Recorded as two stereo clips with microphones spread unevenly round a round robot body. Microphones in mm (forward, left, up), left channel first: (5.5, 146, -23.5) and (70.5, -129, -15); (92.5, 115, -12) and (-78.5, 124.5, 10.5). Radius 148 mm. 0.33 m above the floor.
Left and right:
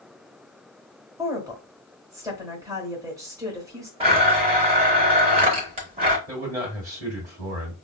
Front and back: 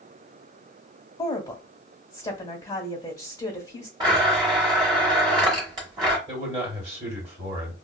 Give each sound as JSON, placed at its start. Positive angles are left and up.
{"t": 1.2, "sound": "a woman speaking", "azimuth_deg": -10, "distance_m": 1.1}
{"t": 4.0, "sound": "a blender", "azimuth_deg": -125, "distance_m": 0.6}
{"t": 6.3, "sound": "a man speaking", "azimuth_deg": -150, "distance_m": 1.4}